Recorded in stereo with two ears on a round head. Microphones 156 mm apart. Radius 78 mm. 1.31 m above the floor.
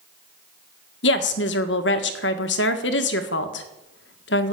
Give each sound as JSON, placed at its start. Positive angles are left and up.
{"t": 1.0, "sound": "a woman speaking", "side_deg": 75, "distance_m": 1.7}